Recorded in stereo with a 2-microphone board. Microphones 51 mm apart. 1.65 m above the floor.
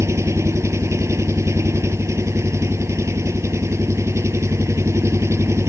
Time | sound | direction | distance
0.0 | an engine running | 65° right (ahead or behind) | ?